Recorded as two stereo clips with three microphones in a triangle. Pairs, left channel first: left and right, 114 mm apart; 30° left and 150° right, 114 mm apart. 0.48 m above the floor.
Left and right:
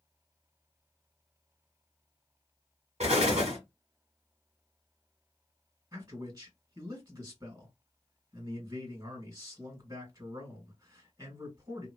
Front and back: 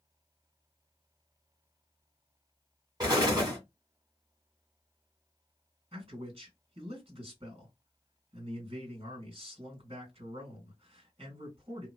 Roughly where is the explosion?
Right.